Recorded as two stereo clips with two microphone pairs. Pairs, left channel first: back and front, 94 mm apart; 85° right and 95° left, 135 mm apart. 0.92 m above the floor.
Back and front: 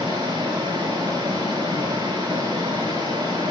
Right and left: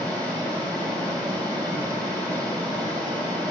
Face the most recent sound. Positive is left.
turn(degrees=40)